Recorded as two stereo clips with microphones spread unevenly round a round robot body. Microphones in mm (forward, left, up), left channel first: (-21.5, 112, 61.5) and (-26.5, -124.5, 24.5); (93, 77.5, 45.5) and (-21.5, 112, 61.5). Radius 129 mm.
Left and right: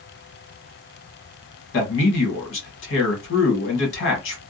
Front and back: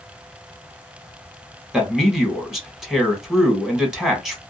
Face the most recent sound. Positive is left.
turn(degrees=70)